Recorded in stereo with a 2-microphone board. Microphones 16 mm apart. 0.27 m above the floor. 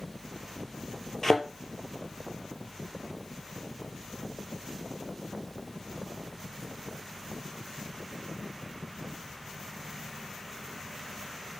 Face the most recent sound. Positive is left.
turn(degrees=20)  # may be behind; listen again after turning